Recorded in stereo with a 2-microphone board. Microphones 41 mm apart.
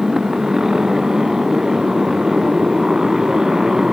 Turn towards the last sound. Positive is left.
turn(degrees=-15)  # may be behind; listen again after turning